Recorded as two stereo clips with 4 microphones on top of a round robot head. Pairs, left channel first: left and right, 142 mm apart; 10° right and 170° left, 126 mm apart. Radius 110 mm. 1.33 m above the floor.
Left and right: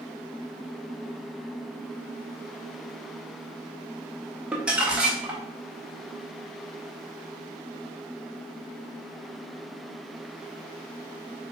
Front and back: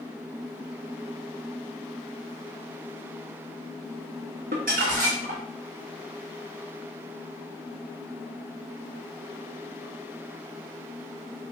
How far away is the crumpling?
About 0.9 m.